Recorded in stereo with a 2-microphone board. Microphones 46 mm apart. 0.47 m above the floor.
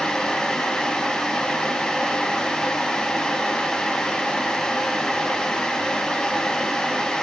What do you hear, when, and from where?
Only background noise.